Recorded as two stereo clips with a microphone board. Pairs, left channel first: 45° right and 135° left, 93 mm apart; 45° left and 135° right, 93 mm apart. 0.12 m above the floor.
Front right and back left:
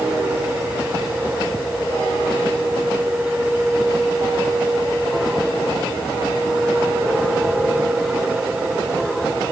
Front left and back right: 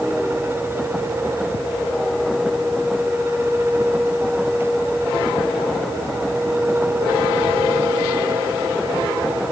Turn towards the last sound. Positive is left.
No sound to turn to.